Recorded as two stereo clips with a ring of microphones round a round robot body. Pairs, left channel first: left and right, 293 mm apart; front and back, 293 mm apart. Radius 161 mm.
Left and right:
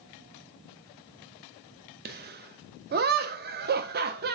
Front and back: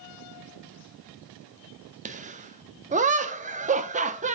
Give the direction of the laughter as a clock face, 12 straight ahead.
4 o'clock.